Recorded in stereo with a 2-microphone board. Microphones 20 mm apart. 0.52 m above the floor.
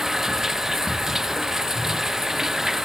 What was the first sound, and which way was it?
Running water, 20° right (ahead or behind).